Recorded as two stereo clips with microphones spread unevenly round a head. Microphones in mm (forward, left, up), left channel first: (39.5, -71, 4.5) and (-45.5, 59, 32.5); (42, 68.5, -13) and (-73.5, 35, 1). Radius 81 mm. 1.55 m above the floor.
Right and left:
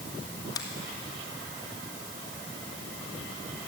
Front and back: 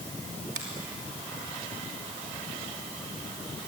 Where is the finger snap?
125° right, 2.5 m.